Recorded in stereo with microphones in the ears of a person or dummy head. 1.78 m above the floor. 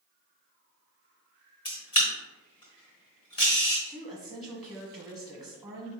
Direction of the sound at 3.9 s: Centre (ahead or behind).